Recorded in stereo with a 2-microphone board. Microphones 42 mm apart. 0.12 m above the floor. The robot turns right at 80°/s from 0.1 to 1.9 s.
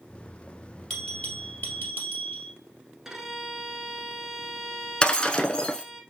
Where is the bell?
20° left, 2.5 m; by 2.5 s 100° left, 2.5 m.